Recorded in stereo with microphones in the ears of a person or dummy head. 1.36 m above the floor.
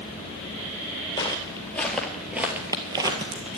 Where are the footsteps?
20° left (ahead or behind), 2 m; by 3.6 s 30° right (ahead or behind), 2.5 m.